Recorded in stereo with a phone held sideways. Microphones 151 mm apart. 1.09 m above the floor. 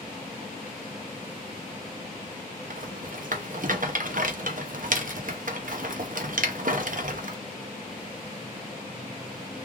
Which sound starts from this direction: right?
A rattle, at 2.7 s.